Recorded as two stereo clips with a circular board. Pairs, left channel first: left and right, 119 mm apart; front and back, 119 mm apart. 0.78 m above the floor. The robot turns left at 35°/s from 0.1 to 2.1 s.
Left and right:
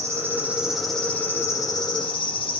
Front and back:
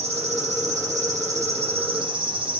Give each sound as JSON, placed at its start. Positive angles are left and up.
{"t": 0.0, "sound": "an insect", "azimuth_deg": -155, "distance_m": 1.1}